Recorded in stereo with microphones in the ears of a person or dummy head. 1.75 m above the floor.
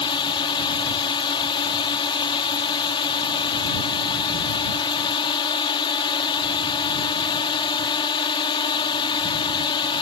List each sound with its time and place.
0.0 s a drone: 25° left (ahead or behind)